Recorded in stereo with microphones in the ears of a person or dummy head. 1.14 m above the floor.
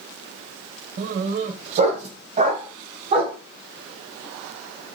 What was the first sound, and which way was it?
A dog barking, 45° right (ahead or behind).